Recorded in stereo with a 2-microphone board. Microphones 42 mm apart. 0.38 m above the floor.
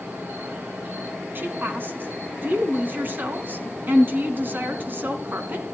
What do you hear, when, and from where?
0.0 s an insect: 50° right (ahead or behind), 7 m
1.4 s a woman speaking: 55° right (ahead or behind), 3 m